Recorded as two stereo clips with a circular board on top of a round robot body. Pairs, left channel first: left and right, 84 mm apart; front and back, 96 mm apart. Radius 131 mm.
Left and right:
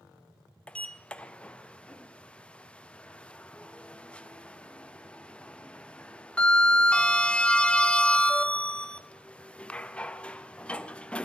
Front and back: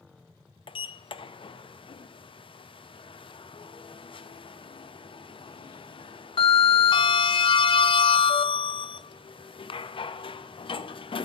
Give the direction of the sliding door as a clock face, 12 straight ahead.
12 o'clock.